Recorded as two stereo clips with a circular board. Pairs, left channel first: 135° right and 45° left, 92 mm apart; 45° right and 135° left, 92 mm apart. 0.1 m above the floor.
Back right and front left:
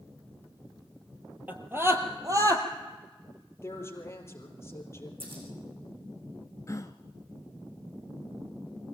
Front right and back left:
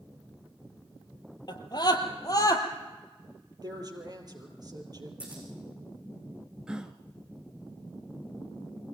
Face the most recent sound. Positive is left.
turn(degrees=-150)